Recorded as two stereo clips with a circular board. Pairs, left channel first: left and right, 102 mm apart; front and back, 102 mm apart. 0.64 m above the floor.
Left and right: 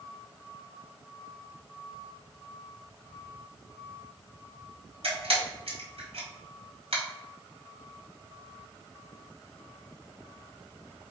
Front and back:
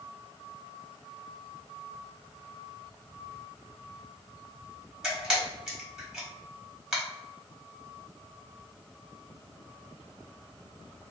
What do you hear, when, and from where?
5.0 s a camera shutter: 95° right, 1.3 m